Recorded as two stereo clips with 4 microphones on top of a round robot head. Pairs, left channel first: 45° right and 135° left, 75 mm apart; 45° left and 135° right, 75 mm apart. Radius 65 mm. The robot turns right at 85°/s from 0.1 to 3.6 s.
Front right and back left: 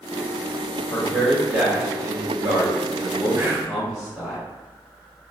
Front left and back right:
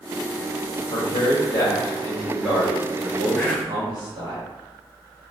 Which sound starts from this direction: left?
Whispering, at 3.4 s.